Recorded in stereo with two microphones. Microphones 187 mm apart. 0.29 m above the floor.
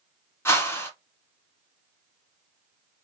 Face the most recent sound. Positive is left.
turn(degrees=15)  # may be behind; listen again after turning